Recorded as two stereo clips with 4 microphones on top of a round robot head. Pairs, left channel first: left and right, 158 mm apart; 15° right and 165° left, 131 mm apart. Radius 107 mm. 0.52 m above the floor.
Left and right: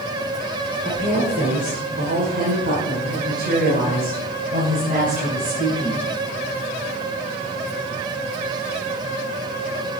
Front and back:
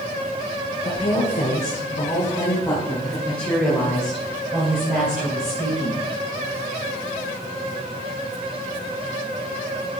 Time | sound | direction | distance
0.8 | a woman speaking | 55° right | 2.5 m